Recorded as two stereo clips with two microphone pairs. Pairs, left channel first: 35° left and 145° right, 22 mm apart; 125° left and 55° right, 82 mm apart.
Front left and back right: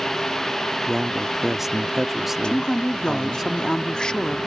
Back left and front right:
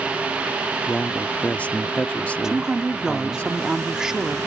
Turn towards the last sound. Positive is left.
turn(degrees=20)